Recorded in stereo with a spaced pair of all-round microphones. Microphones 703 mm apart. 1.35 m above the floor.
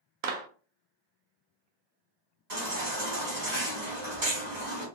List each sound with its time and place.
0.2 s a clap: 60° right (ahead or behind), 0.5 m
2.5 s a baby crying: 65° right (ahead or behind), 1.5 m